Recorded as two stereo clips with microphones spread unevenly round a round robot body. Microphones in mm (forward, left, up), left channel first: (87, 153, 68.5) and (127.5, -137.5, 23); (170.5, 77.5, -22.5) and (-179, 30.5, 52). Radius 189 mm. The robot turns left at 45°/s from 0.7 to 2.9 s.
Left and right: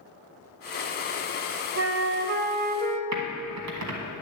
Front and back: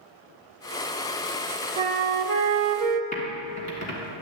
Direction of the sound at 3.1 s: 60° right.